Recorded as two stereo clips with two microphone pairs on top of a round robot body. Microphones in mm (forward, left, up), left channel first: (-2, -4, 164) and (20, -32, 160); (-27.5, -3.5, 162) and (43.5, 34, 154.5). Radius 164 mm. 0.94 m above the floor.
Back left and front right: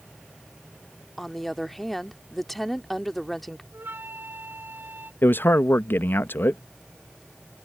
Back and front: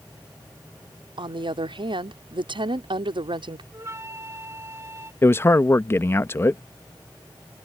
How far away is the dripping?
No dripping in this recording.